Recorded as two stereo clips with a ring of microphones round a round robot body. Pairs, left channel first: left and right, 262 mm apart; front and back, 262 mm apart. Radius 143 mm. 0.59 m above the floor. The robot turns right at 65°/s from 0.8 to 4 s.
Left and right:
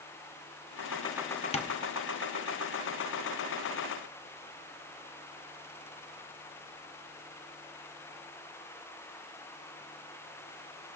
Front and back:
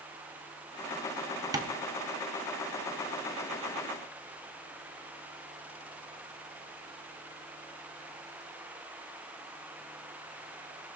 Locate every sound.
1.5 s tapping: 120° left, 0.8 m; by 1.8 s 135° left, 0.8 m